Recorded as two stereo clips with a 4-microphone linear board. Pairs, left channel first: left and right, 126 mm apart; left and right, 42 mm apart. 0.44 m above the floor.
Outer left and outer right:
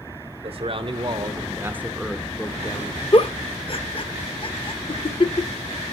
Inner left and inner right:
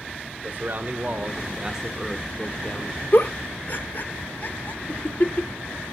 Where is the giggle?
45° left (ahead or behind), 0.6 m.